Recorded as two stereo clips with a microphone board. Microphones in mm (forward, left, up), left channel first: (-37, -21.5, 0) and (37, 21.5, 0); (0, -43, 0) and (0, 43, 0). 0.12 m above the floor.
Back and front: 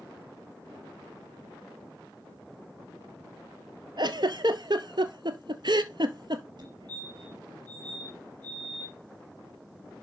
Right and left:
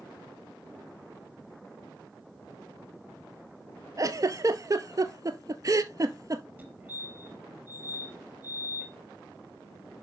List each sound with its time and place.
4.0 s a giggle: 45° left, 0.8 m
6.6 s a fire alarm: 20° left, 4 m